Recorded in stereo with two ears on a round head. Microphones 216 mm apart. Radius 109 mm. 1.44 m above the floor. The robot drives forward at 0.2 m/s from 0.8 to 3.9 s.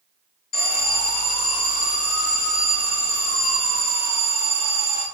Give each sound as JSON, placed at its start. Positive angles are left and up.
{"t": 0.5, "sound": "an alarm", "side_deg": 40, "distance_m": 1.3}